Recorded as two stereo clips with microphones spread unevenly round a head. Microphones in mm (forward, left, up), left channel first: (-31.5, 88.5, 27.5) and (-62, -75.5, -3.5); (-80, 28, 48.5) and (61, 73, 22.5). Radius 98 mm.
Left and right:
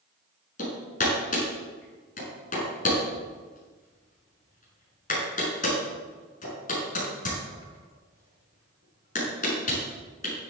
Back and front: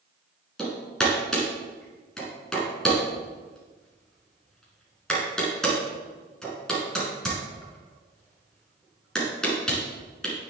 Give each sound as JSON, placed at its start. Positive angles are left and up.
{"t": 0.6, "sound": "hammering", "azimuth_deg": 115, "distance_m": 6.0}